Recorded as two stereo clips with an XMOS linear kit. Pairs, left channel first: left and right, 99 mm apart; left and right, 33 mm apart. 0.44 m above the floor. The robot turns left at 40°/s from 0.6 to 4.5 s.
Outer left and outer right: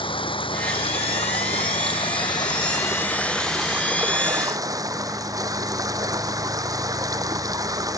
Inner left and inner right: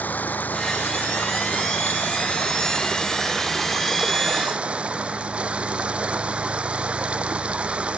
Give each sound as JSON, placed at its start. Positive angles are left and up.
{"t": 0.0, "sound": "running water", "azimuth_deg": 120}